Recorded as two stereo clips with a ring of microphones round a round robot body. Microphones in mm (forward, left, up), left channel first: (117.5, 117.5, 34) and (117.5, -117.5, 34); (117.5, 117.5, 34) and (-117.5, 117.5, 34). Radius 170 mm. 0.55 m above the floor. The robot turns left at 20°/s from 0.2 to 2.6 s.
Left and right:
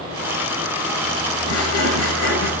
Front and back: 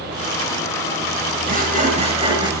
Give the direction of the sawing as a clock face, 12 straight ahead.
8 o'clock.